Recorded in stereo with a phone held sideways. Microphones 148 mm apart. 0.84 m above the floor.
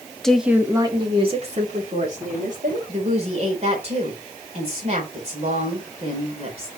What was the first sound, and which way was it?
A woman speaking, 5° left (ahead or behind).